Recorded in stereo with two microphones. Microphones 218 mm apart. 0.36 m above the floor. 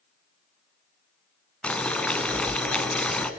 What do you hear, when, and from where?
1.6 s boiling: 5° left (ahead or behind), 1.1 m